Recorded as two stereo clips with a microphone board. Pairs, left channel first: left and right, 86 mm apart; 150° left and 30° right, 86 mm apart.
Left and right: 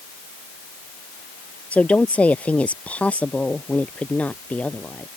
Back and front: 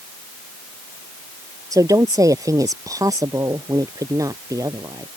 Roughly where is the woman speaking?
Ahead.